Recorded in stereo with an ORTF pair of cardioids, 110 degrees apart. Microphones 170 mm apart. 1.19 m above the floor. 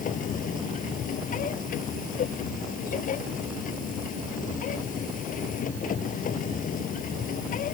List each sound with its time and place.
0.0 s a machine running: 50° left